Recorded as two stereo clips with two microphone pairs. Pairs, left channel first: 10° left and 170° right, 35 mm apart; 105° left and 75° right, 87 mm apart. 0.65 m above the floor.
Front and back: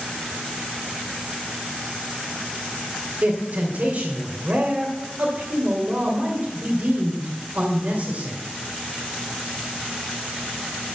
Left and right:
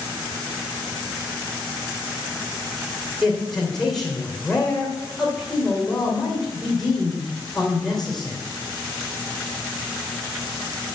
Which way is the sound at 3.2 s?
165° right.